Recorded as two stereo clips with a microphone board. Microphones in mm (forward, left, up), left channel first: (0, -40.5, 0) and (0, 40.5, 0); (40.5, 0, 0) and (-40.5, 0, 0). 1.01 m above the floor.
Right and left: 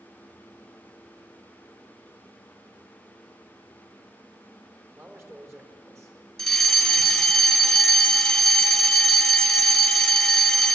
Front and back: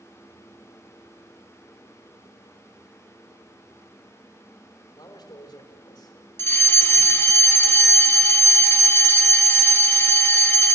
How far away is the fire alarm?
About 1.4 m.